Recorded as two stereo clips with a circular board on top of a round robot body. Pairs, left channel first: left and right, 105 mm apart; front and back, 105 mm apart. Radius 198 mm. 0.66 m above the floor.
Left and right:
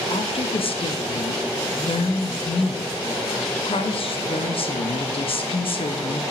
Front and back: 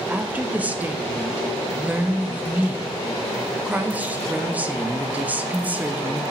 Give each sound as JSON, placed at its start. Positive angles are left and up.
{"t": 0.1, "sound": "a woman speaking", "azimuth_deg": 105, "distance_m": 1.1}